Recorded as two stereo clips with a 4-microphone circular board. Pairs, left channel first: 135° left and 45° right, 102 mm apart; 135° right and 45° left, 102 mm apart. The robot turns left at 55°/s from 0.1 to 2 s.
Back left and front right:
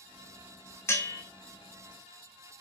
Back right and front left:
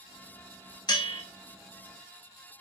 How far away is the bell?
About 0.6 m.